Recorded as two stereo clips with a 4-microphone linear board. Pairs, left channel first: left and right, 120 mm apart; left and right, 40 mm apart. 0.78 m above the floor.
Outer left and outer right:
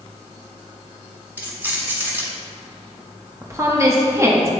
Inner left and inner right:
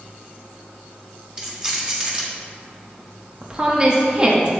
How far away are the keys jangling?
About 1.5 m.